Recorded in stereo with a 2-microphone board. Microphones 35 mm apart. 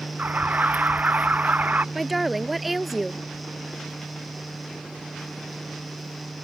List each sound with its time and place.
0.2 s an alarm: 50° right (ahead or behind)
1.9 s a woman speaking: 5° right (ahead or behind)